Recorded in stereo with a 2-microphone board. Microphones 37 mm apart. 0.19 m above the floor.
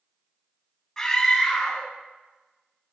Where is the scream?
15° left (ahead or behind), 1.1 m.